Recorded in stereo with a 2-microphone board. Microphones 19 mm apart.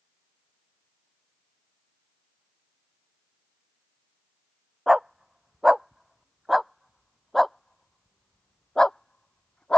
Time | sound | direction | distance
4.9 | a dog barking | 25° right (ahead or behind) | ?